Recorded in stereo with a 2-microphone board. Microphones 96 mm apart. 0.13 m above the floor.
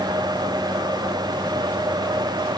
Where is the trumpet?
I don't hear a trumpet.